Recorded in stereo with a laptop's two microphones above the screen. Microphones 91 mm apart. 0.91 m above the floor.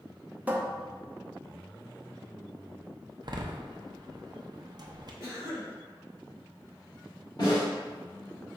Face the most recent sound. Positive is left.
turn(degrees=50)  # may be behind; listen again after turning